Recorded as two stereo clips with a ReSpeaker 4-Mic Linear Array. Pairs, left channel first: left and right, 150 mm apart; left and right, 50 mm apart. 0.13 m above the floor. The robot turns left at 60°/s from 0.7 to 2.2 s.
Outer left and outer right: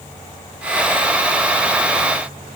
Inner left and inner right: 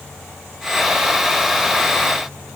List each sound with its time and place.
Only background noise.